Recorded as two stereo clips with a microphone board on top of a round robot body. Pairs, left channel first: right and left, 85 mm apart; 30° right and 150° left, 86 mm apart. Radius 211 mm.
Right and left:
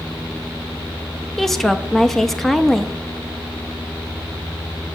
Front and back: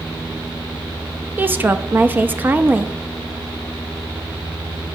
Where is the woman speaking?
170° right, 1.0 m.